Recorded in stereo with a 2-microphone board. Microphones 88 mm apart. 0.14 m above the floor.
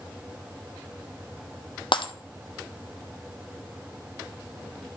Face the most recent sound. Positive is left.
turn(degrees=70)  # may be behind; listen again after turning